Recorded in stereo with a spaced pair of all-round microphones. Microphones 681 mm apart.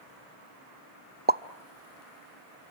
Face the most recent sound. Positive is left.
turn(degrees=-15)  # may be behind; listen again after turning